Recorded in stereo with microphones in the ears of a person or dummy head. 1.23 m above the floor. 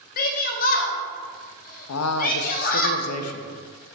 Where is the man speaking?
85° left, 0.5 m.